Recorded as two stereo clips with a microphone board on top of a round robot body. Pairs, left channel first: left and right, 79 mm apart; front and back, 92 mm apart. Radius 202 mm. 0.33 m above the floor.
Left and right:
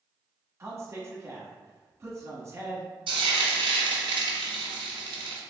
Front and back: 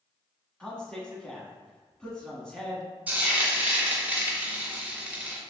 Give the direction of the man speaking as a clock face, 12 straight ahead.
3 o'clock.